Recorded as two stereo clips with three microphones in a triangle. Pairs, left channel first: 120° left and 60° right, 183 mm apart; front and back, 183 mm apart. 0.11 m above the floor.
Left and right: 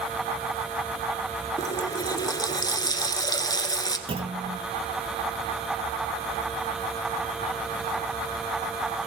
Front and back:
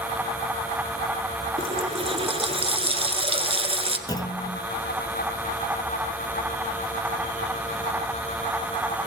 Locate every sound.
1.6 s a running tap: 165° left, 1.2 m
4.1 s a clunk: 45° right, 1.1 m